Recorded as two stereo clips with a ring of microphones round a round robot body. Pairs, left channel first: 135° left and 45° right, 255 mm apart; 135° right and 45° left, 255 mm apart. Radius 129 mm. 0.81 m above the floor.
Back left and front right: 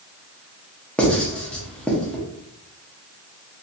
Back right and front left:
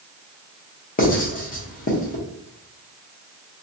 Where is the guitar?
No guitar in this recording.